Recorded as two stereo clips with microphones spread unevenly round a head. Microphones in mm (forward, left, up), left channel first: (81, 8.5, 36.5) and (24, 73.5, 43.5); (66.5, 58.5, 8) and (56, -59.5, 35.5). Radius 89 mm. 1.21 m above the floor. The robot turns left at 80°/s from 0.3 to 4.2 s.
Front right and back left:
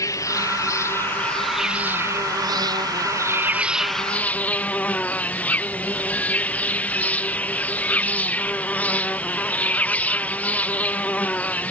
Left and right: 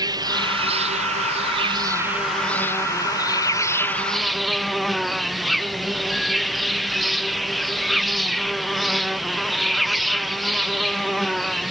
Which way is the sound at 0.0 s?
35° right.